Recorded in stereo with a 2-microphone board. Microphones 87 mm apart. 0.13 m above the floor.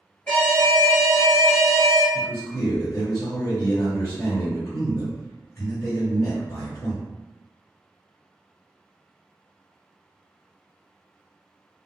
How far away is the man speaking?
About 1.8 m.